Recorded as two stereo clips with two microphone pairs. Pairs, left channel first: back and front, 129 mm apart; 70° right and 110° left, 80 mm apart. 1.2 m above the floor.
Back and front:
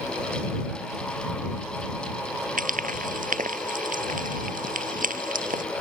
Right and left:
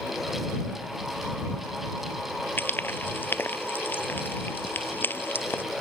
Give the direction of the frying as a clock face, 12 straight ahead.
12 o'clock.